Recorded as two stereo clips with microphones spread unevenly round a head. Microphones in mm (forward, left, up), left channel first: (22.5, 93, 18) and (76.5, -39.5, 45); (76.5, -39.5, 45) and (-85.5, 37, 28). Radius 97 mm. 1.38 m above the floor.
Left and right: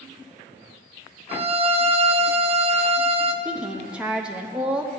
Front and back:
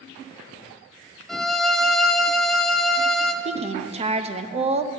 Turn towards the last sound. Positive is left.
turn(degrees=-155)